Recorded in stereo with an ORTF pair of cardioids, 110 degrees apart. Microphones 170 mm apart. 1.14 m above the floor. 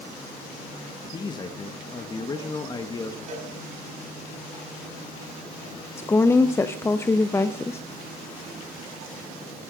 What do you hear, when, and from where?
1.1 s a man speaking: 25° left, 1.2 m
3.3 s a cowbell: 50° right, 3.5 m
6.0 s a woman speaking: 15° left, 0.6 m